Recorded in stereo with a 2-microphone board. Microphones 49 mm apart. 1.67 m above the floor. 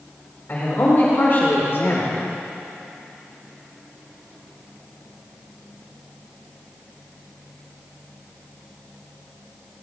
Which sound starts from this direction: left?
A man speaking, at 0.5 s.